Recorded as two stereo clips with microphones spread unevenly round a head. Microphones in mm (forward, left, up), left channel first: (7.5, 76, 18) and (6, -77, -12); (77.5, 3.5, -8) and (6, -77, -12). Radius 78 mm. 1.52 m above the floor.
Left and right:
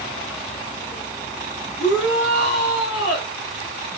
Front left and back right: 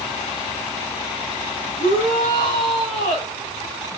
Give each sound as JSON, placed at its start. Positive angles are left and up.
{"t": 1.8, "sound": "a shout", "azimuth_deg": 70, "distance_m": 4.5}